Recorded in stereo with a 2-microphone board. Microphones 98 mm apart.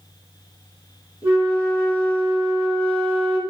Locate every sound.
1.2 s a flute: 25° right (ahead or behind), 1.8 m